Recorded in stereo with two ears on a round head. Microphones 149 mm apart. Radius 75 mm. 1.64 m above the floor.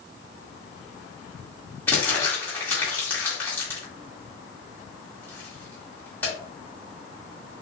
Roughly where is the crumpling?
Centre.